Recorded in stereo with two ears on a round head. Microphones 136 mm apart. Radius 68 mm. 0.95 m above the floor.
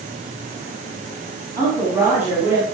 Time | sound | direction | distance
1.6 | a woman speaking | 20° right (ahead or behind) | 6.5 m